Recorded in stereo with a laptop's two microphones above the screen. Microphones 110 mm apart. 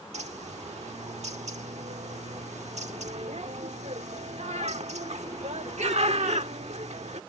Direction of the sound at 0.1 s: 90° right.